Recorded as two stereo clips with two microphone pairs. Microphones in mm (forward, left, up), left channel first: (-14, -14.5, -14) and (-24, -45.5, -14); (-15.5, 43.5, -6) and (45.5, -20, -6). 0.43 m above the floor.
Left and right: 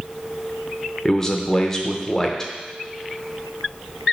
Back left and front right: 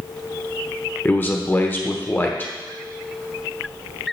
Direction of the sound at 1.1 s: 125° left.